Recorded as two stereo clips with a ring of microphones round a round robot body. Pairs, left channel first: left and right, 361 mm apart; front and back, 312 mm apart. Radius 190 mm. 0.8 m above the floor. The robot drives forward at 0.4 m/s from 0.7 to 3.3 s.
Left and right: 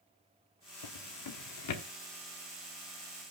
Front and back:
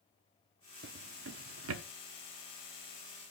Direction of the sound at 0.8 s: 120° left.